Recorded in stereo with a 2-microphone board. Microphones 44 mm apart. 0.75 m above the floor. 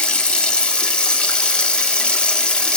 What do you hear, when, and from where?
0.0 s running water: 25° left (ahead or behind), 1.1 m